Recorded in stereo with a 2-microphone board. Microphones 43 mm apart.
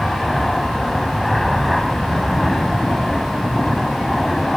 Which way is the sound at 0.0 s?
5° left (ahead or behind).